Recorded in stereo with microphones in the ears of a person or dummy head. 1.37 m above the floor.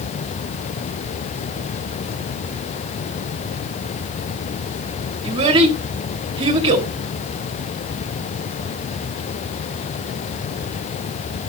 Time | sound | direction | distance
5.2 | a child speaking | 30° right (ahead or behind) | 1.6 m